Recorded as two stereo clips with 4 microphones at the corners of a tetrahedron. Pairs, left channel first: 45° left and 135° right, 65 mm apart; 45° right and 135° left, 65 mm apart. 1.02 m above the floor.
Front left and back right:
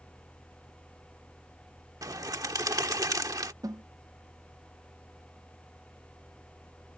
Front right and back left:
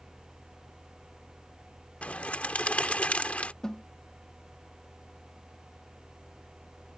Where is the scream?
No scream in this recording.